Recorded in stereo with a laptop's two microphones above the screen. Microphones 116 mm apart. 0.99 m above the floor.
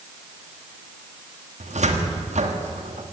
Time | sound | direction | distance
1.6 | a cupboard door | 80° right | 1.5 m